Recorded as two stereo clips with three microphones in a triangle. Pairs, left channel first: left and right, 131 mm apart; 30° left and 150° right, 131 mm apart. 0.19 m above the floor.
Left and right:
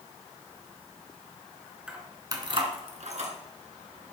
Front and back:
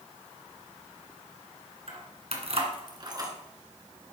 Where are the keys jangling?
170° right, 1.9 m; by 3.3 s 90° right, 2 m.